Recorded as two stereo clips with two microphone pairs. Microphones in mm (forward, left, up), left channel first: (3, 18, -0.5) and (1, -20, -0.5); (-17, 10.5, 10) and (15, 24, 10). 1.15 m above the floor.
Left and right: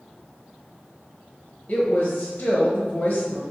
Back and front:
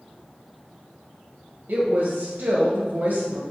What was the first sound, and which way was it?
A woman speaking, 20° left.